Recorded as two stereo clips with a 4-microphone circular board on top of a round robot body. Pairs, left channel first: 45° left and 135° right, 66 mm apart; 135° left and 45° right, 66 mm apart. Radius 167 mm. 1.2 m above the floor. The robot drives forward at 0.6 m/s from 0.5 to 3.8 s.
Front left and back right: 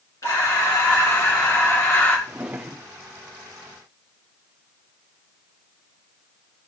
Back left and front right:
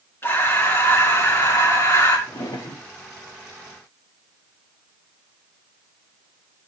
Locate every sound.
0.2 s breathing: 80° left, 3 m; by 2.2 s 100° left, 3 m
2.3 s a drawer: 150° left, 0.8 m; by 2.9 s 160° left, 1.1 m